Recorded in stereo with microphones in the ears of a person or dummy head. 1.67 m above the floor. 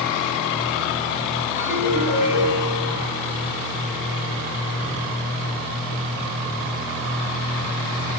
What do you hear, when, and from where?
1.6 s a ringtone: 10° right (ahead or behind), 10 m